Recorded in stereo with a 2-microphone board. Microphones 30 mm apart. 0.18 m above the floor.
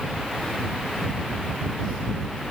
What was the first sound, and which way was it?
Only background noise.